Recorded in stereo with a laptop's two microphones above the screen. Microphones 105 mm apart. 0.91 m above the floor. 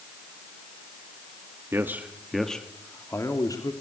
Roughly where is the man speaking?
Right.